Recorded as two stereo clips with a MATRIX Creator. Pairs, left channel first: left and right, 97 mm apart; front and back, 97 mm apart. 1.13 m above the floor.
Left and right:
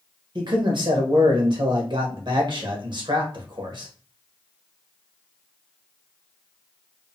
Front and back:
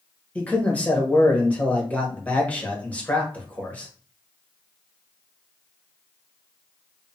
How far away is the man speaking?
About 0.9 m.